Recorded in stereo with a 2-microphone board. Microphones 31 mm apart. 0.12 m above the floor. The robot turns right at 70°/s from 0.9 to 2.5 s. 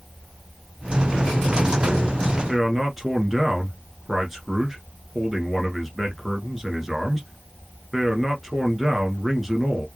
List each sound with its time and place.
2.5 s a man speaking: 5° right (ahead or behind), 1.4 m